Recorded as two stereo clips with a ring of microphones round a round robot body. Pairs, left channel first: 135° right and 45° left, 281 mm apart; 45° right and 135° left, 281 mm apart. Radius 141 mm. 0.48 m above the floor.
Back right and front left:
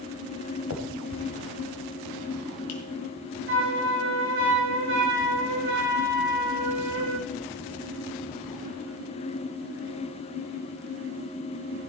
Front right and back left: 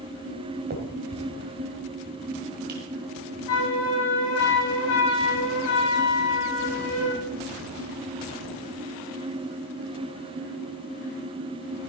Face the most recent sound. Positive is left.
turn(degrees=-5)